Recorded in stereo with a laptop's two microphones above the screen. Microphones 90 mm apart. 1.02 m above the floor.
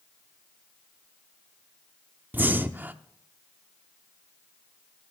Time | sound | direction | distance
2.3 | breathing | 20° right (ahead or behind) | 0.6 m